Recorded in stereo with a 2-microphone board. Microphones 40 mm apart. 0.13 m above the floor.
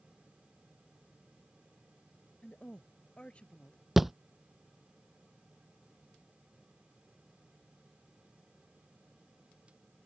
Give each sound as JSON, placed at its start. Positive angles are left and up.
{"t": 2.4, "sound": "a woman speaking", "side_deg": 30}
{"t": 4.0, "sound": "a thud", "side_deg": -5}